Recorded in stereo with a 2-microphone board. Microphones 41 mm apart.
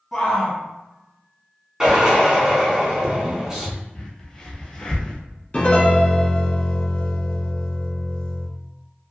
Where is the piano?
35° left (ahead or behind), 0.7 m.